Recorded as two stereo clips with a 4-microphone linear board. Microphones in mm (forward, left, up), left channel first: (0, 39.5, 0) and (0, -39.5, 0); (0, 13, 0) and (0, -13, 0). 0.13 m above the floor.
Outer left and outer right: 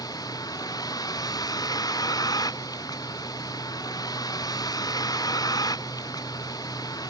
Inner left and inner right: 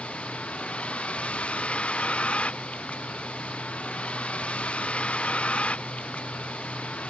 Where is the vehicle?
50° left (ahead or behind).